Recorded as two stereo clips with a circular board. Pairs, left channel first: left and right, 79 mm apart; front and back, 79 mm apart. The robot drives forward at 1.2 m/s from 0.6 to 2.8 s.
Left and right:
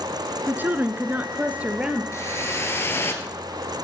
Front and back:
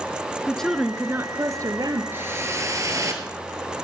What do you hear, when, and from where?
0.5 s a woman speaking: 75° right, 1.1 m; by 2.0 s 165° right, 1.9 m
2.1 s a whoosh: 125° left, 2.5 m; by 3.4 s 145° left, 3 m